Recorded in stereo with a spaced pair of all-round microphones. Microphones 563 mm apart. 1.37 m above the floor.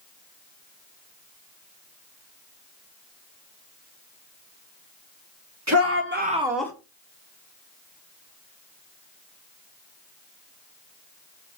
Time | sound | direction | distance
5.7 | a shout | 30° right (ahead or behind) | 1.5 m